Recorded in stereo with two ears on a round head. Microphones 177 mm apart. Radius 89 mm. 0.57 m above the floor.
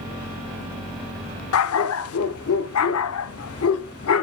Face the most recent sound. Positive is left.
turn(degrees=80)